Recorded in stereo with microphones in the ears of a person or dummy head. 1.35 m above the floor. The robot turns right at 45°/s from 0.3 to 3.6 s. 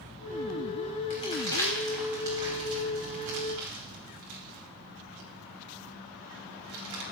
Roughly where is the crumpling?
Left.